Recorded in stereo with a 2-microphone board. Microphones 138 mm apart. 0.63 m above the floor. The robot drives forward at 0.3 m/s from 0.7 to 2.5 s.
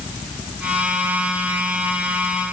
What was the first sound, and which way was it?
Only background noise.